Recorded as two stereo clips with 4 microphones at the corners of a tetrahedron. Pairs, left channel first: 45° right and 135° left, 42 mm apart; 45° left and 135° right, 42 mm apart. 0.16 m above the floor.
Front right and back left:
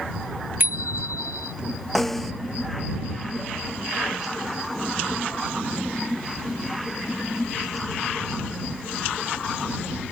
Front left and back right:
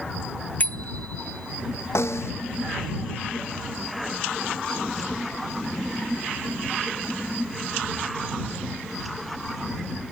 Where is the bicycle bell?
95° left.